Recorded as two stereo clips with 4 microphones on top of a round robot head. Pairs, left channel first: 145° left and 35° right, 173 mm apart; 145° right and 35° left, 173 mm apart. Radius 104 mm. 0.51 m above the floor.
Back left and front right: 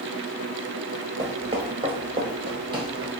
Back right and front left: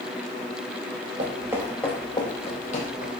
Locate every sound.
1.2 s footsteps: 25° left, 0.5 m; by 3.1 s 100° right, 1.1 m